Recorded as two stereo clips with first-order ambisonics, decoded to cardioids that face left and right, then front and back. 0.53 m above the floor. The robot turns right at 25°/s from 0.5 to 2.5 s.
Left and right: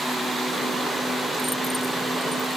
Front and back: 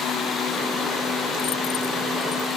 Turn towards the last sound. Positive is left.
No sound to turn to.